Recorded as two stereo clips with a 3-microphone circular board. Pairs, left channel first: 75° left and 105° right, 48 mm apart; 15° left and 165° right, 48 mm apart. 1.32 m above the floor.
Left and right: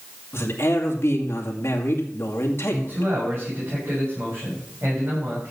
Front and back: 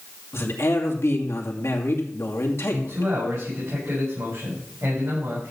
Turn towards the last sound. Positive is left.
turn(degrees=-145)